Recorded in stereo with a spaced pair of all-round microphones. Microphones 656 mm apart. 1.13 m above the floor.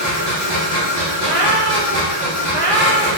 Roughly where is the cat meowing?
Right.